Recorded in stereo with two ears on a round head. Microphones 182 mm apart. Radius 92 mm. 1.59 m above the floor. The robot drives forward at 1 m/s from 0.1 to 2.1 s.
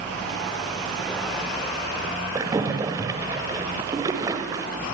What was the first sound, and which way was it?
A splash, 15° right (ahead or behind).